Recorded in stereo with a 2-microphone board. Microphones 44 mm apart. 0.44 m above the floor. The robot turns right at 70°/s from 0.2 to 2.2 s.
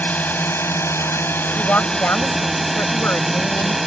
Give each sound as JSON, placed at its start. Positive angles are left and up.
{"t": 0.0, "sound": "a drone", "azimuth_deg": 40}
{"t": 1.6, "sound": "a woman speaking", "azimuth_deg": 45}